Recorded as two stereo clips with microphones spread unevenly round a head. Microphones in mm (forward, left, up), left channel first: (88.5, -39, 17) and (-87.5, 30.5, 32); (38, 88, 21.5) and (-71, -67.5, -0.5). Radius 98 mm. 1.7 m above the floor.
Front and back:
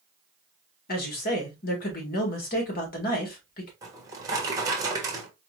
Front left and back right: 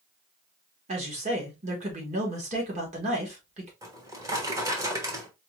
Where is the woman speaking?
65° right, 1.9 m.